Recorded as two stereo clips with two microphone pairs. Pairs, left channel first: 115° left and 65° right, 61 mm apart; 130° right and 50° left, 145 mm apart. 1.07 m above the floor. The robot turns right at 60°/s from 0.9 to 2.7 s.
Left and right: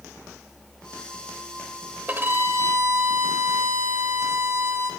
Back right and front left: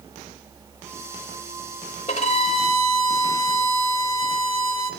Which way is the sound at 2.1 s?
120° right.